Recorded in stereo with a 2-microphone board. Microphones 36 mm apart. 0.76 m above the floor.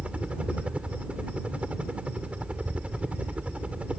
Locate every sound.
0.0 s a helicopter: 30° right (ahead or behind)